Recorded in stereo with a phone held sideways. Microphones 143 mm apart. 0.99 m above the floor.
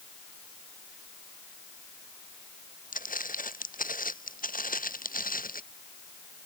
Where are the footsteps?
75° left (ahead or behind); by 5.6 s 80° left.